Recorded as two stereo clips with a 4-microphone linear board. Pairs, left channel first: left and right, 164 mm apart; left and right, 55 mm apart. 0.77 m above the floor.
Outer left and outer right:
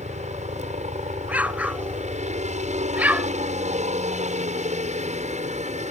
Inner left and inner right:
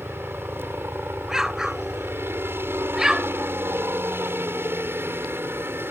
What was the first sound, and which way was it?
A helicopter, 45° right (ahead or behind).